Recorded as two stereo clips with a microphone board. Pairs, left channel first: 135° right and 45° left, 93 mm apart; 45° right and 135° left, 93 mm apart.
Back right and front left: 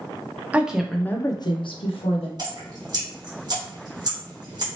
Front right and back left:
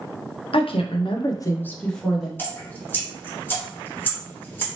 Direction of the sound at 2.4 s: 20° left.